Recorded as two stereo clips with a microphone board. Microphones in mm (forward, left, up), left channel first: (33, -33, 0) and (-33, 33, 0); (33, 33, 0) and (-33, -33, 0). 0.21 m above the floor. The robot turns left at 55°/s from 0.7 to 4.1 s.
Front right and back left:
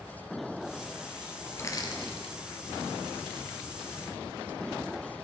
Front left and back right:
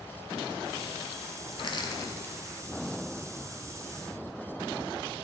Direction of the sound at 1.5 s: 20° left.